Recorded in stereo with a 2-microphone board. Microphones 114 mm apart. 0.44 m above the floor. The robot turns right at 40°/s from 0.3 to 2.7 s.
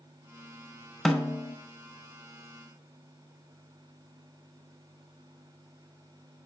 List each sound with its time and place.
1.1 s a snare drum: centre (ahead or behind), 0.5 m; by 1.6 s 20° left (ahead or behind), 0.5 m